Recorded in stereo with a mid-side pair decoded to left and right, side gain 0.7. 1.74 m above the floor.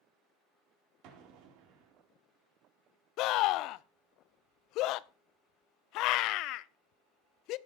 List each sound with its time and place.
1.0 s an explosion: 65° right, 4 m
3.2 s a scream: 60° left, 0.7 m